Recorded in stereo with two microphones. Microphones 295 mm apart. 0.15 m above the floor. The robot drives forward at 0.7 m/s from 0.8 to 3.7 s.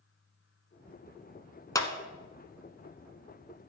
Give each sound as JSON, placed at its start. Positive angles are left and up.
{"t": 1.8, "sound": "a clap", "side_deg": 10, "distance_m": 1.1}